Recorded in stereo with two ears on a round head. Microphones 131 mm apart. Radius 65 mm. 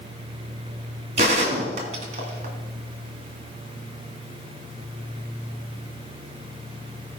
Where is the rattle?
I don't hear a rattle.